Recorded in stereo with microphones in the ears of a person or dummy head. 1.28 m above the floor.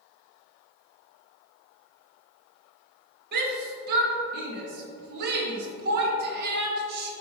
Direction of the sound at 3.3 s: 60° right (ahead or behind).